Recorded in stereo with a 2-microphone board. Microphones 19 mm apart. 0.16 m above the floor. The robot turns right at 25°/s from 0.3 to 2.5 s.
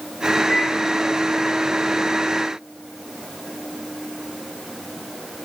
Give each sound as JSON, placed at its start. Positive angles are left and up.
{"t": 0.5, "sound": "a microwave", "side_deg": 30, "distance_m": 1.6}